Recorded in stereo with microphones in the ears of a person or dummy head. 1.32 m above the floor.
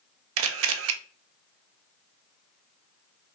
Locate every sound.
0.4 s a camera shutter: 75° right (ahead or behind), 0.6 m